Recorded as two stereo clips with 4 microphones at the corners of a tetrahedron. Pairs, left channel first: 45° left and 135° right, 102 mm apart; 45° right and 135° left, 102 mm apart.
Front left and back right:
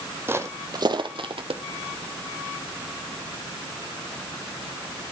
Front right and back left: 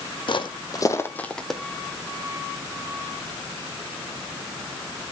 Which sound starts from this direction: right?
Footsteps, at 0.3 s.